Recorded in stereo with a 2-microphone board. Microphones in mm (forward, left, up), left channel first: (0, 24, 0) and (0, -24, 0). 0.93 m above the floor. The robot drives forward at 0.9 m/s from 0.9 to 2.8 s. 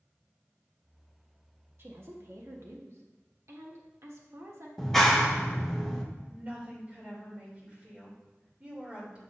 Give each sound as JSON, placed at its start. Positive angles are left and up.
{"t": 1.8, "sound": "a woman speaking", "side_deg": -55, "distance_m": 1.4}
{"t": 4.8, "sound": "a clap", "side_deg": 5, "distance_m": 1.0}
{"t": 6.3, "sound": "a woman speaking", "side_deg": -25, "distance_m": 3.0}